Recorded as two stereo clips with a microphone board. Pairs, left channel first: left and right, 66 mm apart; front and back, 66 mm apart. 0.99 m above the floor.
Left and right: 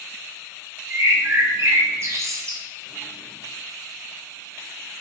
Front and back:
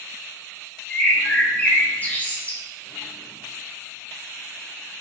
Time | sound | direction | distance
0.9 | a bird | 60° right | 0.6 m